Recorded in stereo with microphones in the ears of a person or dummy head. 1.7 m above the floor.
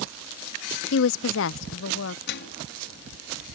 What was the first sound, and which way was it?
A woman speaking, 70° left (ahead or behind).